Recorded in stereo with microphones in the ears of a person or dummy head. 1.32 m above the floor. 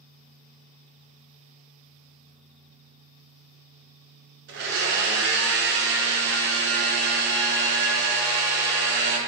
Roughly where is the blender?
Right.